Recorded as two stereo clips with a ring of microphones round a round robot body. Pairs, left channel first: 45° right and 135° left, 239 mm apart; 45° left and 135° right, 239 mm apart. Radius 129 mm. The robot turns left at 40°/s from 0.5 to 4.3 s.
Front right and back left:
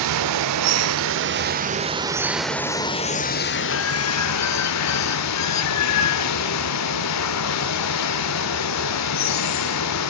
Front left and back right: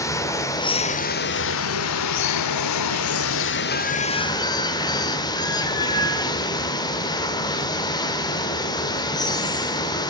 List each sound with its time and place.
0.0 s running water: 125° left, 1.1 m; by 10.1 s 30° right, 1.1 m